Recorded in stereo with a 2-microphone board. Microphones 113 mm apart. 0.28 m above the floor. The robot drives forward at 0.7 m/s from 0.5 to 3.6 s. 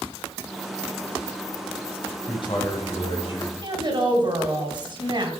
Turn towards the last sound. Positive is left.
turn(degrees=-45)  # may be behind; listen again after turning